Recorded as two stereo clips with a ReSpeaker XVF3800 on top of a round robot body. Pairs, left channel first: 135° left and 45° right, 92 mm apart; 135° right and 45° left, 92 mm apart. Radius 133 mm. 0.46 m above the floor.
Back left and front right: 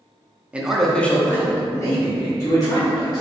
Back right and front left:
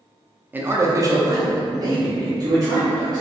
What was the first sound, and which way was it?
A man speaking, 10° left.